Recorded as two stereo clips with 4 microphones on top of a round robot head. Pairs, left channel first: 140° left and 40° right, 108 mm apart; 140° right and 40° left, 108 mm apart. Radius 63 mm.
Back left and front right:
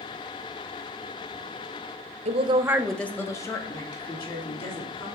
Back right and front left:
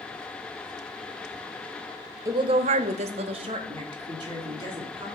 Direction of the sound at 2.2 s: 25° right.